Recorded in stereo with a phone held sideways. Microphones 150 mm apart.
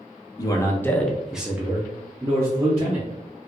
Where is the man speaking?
25° left (ahead or behind), 0.7 m; by 3.5 s 30° right (ahead or behind), 1.6 m.